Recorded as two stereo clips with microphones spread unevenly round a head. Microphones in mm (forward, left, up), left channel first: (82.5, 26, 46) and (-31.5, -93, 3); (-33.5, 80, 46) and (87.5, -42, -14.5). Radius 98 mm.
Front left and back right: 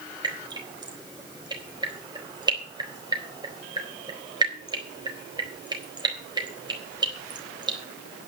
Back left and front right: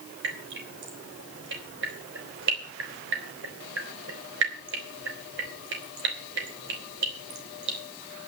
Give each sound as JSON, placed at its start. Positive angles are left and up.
{"t": 0.2, "sound": "dripping", "azimuth_deg": -70, "distance_m": 4.0}